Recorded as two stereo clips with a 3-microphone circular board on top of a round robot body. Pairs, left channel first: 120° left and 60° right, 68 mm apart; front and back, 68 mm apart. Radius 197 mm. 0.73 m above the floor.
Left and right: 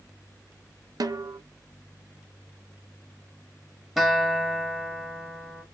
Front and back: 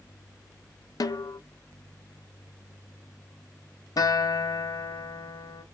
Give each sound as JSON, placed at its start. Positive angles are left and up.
{"t": 1.0, "sound": "a snare drum", "azimuth_deg": -30, "distance_m": 0.6}
{"t": 4.0, "sound": "a guitar", "azimuth_deg": 30, "distance_m": 1.2}